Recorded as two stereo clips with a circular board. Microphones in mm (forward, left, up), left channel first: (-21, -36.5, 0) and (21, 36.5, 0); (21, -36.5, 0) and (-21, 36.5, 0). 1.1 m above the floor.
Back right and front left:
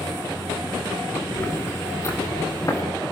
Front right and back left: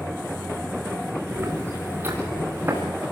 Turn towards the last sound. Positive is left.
turn(degrees=-175)